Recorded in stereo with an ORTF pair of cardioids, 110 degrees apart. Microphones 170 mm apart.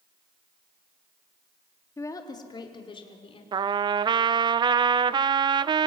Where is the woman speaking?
20° left, 3 m; by 3.4 s 35° left, 5 m.